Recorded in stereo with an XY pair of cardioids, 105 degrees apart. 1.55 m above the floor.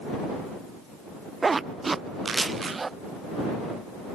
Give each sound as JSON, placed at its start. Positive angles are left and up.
{"t": 1.4, "sound": "a zipper", "azimuth_deg": -25}